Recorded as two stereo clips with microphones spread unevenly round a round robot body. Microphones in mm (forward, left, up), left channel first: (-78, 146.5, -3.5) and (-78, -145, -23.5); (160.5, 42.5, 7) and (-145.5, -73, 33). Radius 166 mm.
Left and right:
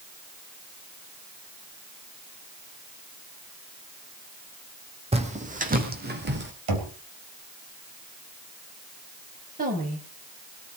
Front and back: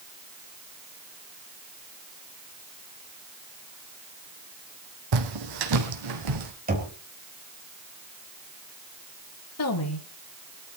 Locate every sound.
5.1 s footsteps: 160° right, 2.5 m; by 6.5 s 145° right, 3 m
6.7 s knocking: 95° right, 3.5 m
9.6 s a woman speaking: 25° right, 3.5 m